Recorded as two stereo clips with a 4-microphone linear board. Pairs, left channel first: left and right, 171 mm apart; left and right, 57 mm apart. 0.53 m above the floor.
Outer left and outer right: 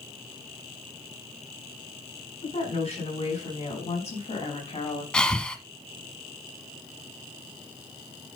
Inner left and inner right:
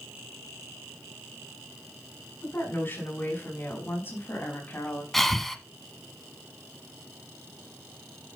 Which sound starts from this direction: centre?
Breathing, at 5.1 s.